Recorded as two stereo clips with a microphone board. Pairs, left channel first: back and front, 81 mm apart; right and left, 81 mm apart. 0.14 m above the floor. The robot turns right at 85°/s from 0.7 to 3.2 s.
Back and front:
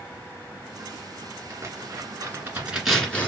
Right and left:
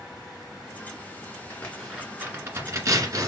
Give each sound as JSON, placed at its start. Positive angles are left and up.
{"t": 1.5, "sound": "tearing paper", "azimuth_deg": -35, "distance_m": 2.0}